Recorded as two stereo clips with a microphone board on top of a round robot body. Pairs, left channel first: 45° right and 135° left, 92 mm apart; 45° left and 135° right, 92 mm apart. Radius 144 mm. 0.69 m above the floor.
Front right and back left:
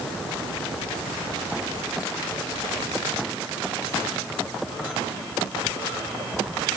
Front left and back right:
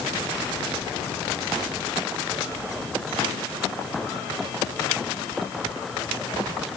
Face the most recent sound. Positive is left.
No sound to turn to.